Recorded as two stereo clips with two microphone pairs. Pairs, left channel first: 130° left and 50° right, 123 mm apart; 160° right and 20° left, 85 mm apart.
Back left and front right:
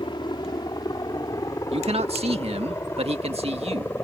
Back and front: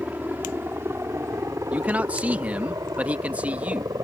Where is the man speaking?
50° right.